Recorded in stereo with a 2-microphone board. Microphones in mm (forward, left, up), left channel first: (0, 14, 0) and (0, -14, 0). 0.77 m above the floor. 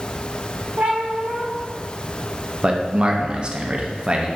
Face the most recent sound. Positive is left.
turn(degrees=-35)  # may be behind; listen again after turning